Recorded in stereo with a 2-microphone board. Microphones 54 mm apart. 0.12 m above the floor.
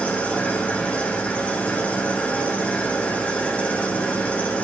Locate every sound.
0.0 s an engine running: 25° left (ahead or behind), 5 m